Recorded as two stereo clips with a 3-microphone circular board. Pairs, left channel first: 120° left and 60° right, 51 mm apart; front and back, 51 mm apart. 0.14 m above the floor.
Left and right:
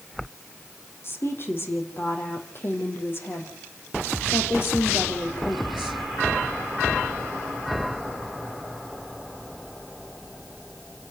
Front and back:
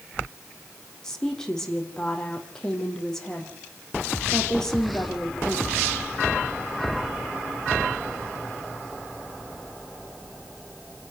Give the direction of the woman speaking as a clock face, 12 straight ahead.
9 o'clock.